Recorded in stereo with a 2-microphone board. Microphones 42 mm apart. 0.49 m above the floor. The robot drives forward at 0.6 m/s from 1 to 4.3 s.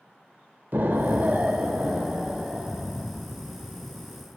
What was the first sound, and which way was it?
An explosion, 55° right (ahead or behind).